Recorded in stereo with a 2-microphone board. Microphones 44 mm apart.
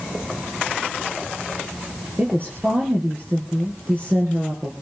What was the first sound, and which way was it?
A woman speaking, 50° right (ahead or behind).